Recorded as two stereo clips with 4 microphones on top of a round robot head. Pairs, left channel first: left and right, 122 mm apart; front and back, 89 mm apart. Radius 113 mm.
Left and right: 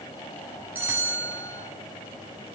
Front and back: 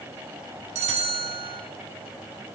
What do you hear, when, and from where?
0.8 s a bell: 170° right, 1.2 m